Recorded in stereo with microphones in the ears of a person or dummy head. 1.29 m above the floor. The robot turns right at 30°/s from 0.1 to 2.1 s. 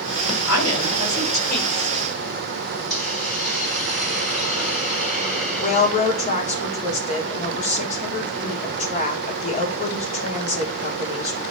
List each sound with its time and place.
0.5 s a woman speaking: 105° left, 4 m; by 2.1 s 155° left, 4 m
2.9 s a hiss: centre (ahead or behind), 4 m
5.6 s a woman speaking: 35° left (ahead or behind), 1.6 m